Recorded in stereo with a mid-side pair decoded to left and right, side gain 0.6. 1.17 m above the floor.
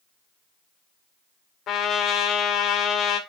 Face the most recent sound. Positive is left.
turn(degrees=55)